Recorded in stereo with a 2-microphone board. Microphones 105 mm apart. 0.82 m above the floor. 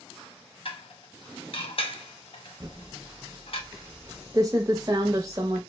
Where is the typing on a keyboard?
30° right (ahead or behind), 0.6 m.